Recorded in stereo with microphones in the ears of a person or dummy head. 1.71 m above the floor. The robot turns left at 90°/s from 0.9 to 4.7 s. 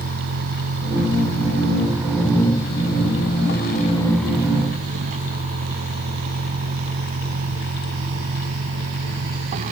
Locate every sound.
0.0 s a vehicle: 60° right; by 9.7 s 40° right